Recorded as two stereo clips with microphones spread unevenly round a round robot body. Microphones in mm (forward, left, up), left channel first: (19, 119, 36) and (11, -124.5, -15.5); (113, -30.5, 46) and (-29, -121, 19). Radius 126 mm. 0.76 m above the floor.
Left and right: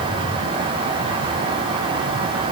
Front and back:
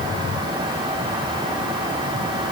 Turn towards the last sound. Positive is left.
No sound to turn to.